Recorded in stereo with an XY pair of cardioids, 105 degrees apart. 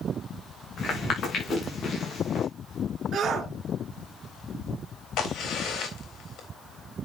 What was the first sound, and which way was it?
Footsteps, 45° left.